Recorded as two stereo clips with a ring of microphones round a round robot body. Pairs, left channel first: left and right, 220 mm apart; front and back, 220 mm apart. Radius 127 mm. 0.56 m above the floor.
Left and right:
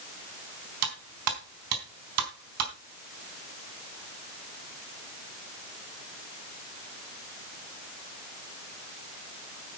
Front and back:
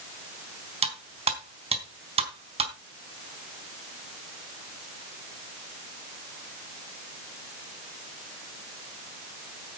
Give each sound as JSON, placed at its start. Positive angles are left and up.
{"t": 0.8, "sound": "cutlery clinking", "azimuth_deg": -115, "distance_m": 3.5}